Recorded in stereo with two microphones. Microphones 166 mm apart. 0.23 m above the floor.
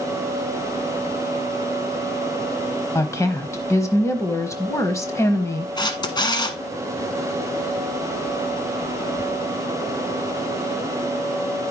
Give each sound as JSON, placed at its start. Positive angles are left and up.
{"t": 3.0, "sound": "a woman speaking", "side_deg": 15, "distance_m": 1.1}
{"t": 5.8, "sound": "a camera shutter", "side_deg": 25, "distance_m": 1.2}